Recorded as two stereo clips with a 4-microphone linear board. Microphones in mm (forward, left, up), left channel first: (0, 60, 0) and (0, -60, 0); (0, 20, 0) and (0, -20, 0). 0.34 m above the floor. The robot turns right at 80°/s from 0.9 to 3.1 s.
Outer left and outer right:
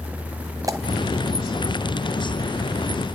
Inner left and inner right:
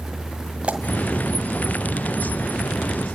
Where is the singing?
I don't hear singing.